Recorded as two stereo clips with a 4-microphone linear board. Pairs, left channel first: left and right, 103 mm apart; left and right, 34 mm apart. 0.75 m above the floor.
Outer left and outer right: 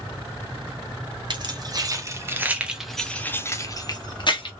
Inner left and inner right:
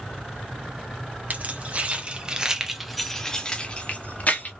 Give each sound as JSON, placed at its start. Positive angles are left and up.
{"t": 1.3, "sound": "keys jangling", "side_deg": -45, "distance_m": 1.1}